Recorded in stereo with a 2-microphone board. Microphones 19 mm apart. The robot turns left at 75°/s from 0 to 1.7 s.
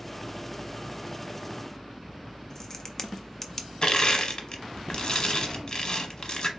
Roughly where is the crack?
Left.